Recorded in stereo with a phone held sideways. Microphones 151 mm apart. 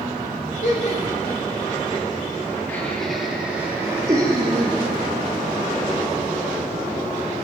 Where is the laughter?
60° left (ahead or behind), 4 m; by 4.8 s 35° right (ahead or behind), 4 m.